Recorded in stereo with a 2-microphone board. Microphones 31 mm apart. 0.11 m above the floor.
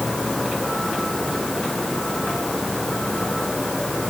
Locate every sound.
Only background noise.